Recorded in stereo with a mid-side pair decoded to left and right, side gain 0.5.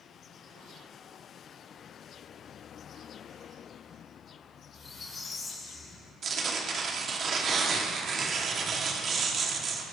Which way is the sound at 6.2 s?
45° right.